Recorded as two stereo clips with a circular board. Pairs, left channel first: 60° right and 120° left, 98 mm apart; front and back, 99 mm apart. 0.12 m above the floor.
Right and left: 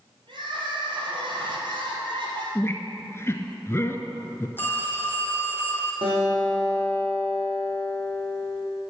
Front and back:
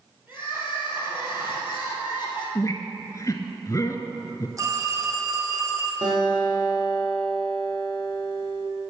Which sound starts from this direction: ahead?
A squeak, at 2.5 s.